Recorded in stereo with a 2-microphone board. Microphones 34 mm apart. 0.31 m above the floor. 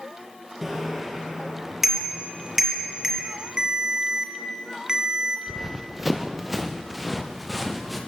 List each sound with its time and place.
0.6 s a bicycle bell: 10° right (ahead or behind), 4.5 m
3.6 s a ringtone: 20° right (ahead or behind), 2 m
5.5 s running footsteps: 15° right (ahead or behind), 1.5 m; by 8.0 s centre (ahead or behind), 3 m